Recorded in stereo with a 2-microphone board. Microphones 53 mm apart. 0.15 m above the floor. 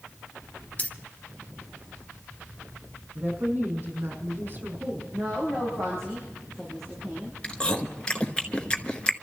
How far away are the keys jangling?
About 0.9 m.